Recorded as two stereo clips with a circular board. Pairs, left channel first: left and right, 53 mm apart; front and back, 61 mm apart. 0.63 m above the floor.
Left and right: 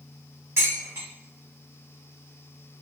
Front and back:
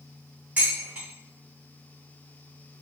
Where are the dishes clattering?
115° right, 1.3 m.